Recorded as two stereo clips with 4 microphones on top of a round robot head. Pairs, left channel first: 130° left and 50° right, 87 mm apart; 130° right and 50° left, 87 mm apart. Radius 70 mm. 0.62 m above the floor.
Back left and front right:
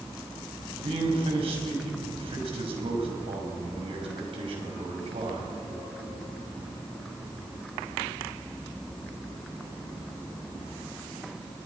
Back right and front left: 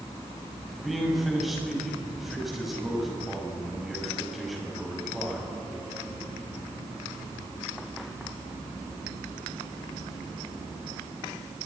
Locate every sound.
0.7 s a man speaking: 40° right, 5.5 m